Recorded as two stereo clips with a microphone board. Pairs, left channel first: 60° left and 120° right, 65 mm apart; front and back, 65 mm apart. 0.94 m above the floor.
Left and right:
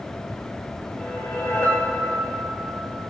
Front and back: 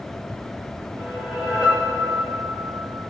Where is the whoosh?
105° left, 4.5 m.